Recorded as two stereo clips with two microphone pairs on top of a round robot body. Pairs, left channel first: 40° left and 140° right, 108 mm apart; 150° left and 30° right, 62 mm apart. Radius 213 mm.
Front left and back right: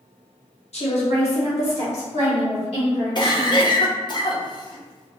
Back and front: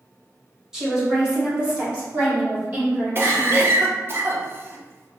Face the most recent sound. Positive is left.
turn(degrees=10)